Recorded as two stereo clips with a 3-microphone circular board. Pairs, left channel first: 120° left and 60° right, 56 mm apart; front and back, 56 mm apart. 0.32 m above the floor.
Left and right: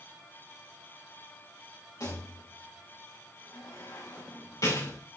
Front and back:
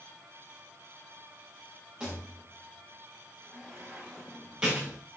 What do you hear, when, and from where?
2.0 s a rattle: 105° left, 6.5 m